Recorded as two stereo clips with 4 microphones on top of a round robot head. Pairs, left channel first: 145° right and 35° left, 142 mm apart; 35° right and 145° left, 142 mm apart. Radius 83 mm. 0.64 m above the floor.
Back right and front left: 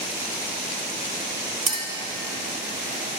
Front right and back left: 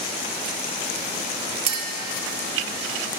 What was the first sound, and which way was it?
A clink, 95° left.